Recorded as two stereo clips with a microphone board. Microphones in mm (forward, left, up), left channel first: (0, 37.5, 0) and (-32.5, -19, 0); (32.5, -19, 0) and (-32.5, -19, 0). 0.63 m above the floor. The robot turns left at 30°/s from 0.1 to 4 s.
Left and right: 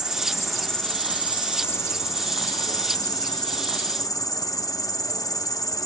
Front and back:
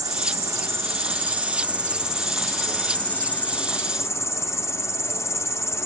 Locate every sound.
0.0 s an insect: 160° left, 0.7 m; by 5.9 s 40° left, 0.7 m